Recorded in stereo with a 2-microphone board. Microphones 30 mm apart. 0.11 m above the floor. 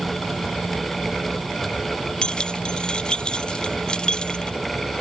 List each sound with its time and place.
2.2 s keys jangling: 30° left (ahead or behind)